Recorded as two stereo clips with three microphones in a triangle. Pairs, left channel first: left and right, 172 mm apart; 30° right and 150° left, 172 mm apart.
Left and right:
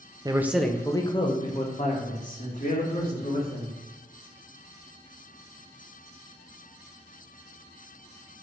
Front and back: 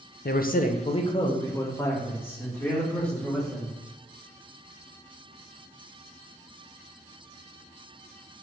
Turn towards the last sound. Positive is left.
turn(degrees=55)